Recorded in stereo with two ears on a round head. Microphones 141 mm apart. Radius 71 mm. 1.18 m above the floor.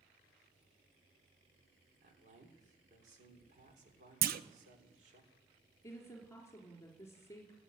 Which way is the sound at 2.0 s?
50° right (ahead or behind).